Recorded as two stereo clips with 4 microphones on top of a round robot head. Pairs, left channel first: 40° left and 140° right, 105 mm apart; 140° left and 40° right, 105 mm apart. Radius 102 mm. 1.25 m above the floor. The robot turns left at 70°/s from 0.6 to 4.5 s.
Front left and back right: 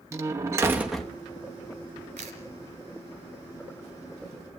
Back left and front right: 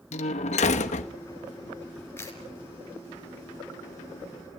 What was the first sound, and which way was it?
A door slam, 160° left.